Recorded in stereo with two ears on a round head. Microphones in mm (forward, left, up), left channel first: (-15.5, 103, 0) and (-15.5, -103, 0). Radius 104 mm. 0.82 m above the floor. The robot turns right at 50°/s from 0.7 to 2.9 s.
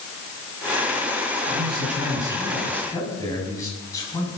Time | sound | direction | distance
1.5 | a man speaking | 55° right | 7.5 m